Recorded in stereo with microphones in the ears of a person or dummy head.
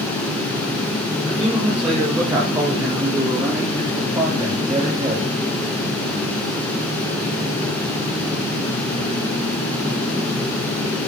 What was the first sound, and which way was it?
A man speaking, 5° right (ahead or behind).